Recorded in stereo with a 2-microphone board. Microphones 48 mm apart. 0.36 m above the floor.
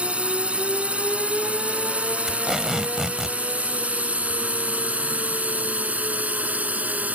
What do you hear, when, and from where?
0.0 s a drone: 25° right (ahead or behind); by 7.2 s 30° right (ahead or behind)
2.3 s tape being pulled: 5° right (ahead or behind)